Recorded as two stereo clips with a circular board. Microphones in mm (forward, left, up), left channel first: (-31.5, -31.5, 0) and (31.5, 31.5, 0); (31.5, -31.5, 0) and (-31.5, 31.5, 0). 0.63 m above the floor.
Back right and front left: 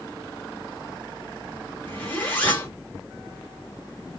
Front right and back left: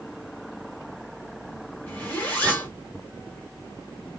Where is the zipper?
90° right, 1.3 m.